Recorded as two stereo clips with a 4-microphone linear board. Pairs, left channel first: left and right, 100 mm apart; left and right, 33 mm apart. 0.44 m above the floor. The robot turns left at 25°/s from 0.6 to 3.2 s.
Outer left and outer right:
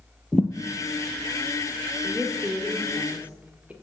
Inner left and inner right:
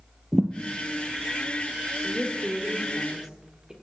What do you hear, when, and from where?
0.3 s a thud: 10° left (ahead or behind), 1.4 m
2.0 s a woman speaking: 20° right (ahead or behind), 1.3 m; by 3.7 s 15° right (ahead or behind), 1.3 m